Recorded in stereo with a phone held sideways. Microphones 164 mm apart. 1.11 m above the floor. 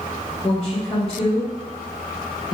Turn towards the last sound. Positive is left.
turn(degrees=35)  # may be behind; listen again after turning